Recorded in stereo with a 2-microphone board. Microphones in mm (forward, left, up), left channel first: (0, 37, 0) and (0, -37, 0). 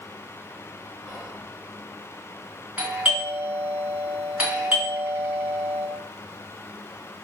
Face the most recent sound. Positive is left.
turn(degrees=-20)  # may be behind; listen again after turning